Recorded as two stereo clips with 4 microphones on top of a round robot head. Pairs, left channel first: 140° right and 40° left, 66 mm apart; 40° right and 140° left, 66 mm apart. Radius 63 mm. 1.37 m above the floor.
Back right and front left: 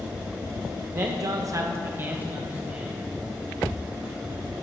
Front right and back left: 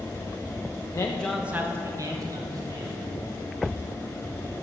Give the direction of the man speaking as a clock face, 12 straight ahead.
12 o'clock.